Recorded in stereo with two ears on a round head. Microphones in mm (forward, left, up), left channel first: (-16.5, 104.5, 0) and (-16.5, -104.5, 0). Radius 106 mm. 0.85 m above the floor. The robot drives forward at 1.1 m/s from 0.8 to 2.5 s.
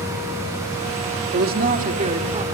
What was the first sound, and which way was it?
A woman speaking, 45° right (ahead or behind).